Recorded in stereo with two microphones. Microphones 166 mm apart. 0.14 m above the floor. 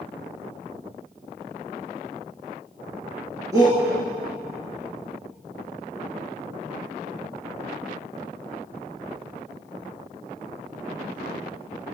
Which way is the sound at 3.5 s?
20° right (ahead or behind).